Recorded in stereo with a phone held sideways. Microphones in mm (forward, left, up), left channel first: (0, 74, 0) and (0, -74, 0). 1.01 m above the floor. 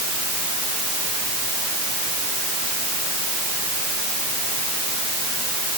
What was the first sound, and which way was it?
Only background noise.